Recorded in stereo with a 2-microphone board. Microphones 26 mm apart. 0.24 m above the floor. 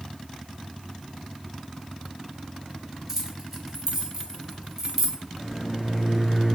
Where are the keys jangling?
20° right (ahead or behind), 0.7 m.